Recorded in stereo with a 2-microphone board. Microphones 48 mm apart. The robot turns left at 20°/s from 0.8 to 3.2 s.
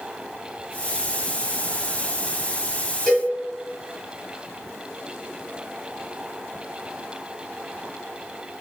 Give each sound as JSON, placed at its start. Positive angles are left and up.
{"t": 3.1, "sound": "a cowbell", "side_deg": 10, "distance_m": 1.4}